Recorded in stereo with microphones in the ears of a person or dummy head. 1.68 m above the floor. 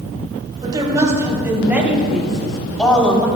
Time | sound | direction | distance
0.6 | a woman speaking | 25° right (ahead or behind) | 3 m